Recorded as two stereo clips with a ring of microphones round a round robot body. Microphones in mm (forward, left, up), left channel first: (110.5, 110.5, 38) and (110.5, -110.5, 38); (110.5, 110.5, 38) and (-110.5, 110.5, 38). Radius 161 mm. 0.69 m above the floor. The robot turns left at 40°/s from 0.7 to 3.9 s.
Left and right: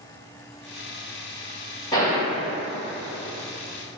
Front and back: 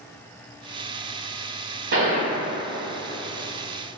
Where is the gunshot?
165° left, 1.8 m; by 2.3 s 145° left, 1.8 m.